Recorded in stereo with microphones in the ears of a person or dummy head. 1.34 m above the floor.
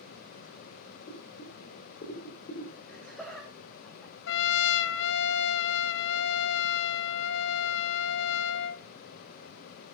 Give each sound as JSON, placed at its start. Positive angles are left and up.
{"t": 1.1, "sound": "boiling", "side_deg": 40, "distance_m": 4.5}
{"t": 2.9, "sound": "laughter", "side_deg": 5, "distance_m": 3.0}
{"t": 4.3, "sound": "a trumpet", "side_deg": 70, "distance_m": 1.0}